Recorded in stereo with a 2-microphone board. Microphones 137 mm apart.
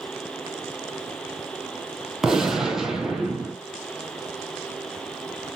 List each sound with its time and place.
2.2 s a gunshot: 5° right (ahead or behind), 0.8 m